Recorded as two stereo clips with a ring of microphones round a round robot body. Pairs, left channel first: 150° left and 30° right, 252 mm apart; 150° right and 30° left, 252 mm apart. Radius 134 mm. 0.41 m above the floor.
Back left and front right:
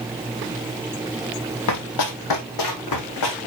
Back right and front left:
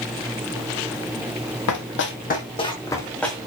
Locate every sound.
1.7 s running footsteps: 175° left, 1.3 m; by 3.4 s 120° left, 2.5 m